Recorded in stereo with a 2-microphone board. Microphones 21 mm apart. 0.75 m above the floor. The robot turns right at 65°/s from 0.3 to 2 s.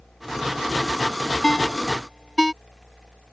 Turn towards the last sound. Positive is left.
turn(degrees=0)  # may be behind; listen again after turning